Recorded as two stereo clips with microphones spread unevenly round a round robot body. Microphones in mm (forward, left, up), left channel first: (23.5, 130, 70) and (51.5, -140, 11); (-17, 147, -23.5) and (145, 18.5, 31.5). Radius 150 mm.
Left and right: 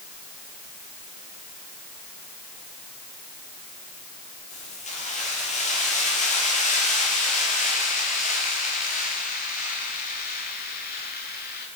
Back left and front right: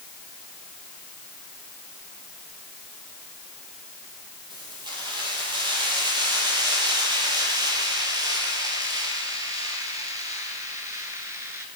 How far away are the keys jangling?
About 8 m.